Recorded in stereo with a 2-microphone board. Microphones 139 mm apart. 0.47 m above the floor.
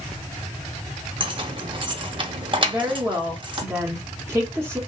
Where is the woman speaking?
20° right (ahead or behind), 1.1 m.